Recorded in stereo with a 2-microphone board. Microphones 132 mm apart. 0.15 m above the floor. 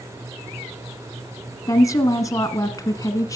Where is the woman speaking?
25° left (ahead or behind), 1.2 m.